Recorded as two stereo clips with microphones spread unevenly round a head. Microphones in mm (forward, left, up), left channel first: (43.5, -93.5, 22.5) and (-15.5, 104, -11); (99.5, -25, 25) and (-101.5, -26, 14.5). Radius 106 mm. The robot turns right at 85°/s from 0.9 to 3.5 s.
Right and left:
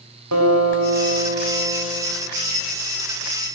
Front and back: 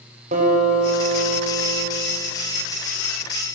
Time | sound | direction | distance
0.3 | a guitar | 120° left | 5.5 m